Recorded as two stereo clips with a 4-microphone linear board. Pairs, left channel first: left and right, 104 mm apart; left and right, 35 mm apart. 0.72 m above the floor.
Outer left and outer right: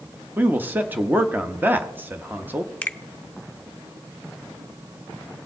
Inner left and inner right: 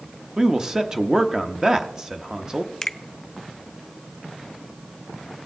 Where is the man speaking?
20° right (ahead or behind), 0.9 m.